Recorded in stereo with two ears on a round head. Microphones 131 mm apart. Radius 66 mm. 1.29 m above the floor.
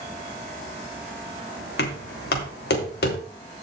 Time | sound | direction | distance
1.8 | knocking | 75° left (ahead or behind) | 3 m